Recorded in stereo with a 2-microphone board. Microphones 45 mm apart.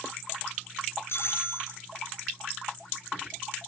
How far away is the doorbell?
About 7 m.